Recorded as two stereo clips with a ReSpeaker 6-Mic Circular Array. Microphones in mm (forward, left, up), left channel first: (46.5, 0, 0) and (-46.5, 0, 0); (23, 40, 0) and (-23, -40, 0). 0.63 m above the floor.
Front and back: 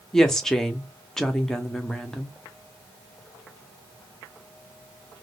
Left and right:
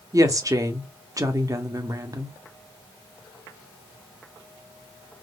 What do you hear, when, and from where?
0.1 s a woman speaking: 85° right, 0.8 m